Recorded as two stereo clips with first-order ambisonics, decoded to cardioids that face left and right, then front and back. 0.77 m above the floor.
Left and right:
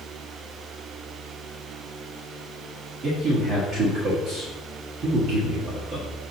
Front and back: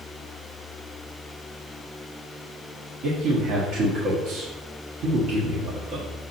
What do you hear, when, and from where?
3.0 s a man speaking: 145° right, 1.4 m